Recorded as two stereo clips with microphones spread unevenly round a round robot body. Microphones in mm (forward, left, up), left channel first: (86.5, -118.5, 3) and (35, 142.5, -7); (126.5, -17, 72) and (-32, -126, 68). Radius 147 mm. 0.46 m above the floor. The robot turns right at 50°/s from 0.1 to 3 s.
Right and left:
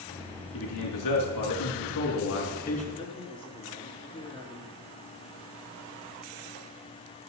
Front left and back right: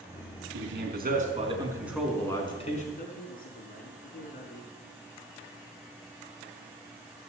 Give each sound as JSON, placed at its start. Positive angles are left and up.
{"t": 0.5, "sound": "a man speaking", "azimuth_deg": -130, "distance_m": 4.5}
{"t": 3.0, "sound": "a man speaking", "azimuth_deg": -10, "distance_m": 5.5}